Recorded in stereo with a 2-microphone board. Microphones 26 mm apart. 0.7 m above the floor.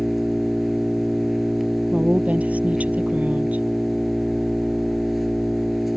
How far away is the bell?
No bell in this recording.